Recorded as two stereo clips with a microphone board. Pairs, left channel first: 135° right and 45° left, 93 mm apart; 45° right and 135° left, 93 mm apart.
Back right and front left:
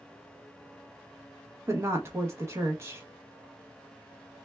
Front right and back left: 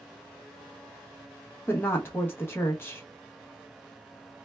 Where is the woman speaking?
5° left, 0.7 m.